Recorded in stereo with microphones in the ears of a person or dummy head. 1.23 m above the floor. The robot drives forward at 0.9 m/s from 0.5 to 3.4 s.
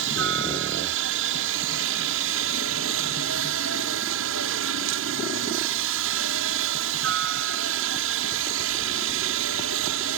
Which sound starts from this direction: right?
A helicopter, at 0.0 s.